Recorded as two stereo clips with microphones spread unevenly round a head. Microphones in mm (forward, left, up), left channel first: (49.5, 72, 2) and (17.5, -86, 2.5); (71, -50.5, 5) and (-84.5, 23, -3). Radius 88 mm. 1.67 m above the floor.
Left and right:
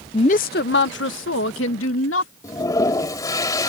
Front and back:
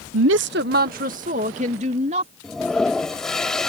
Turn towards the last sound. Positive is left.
turn(degrees=50)